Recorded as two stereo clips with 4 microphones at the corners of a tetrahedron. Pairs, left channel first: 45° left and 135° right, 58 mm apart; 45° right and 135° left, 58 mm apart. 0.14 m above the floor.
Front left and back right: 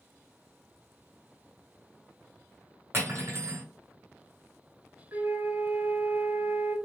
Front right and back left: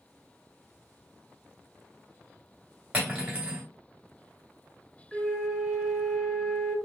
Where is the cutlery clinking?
170° right, 1.4 m.